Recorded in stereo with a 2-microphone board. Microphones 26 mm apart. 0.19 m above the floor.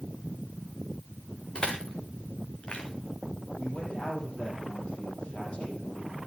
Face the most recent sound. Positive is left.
turn(degrees=40)  # may be behind; listen again after turning